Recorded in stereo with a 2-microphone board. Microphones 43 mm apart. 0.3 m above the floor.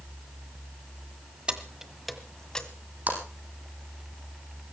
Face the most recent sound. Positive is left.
turn(degrees=-45)  # may be behind; listen again after turning